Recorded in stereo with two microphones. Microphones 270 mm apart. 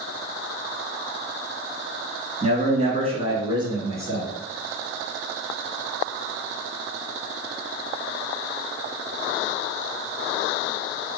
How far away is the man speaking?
About 1.9 m.